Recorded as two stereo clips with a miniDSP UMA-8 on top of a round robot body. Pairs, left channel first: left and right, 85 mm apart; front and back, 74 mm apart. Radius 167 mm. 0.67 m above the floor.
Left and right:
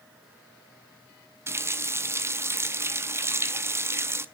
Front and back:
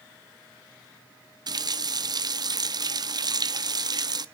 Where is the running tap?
150° right, 0.7 m.